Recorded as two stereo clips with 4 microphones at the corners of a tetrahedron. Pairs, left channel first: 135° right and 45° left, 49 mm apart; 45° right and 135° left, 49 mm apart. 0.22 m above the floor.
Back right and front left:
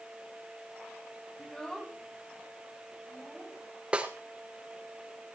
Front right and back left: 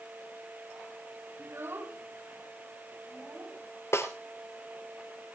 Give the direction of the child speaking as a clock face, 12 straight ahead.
7 o'clock.